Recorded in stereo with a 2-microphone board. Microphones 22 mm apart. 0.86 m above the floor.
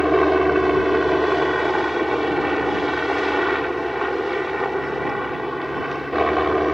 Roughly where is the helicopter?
Centre.